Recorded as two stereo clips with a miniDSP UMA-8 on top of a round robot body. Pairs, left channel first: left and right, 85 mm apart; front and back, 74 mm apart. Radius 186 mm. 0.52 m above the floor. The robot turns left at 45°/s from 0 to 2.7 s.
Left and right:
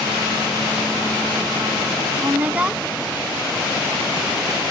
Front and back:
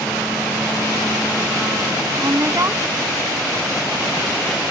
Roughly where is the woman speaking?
Behind right.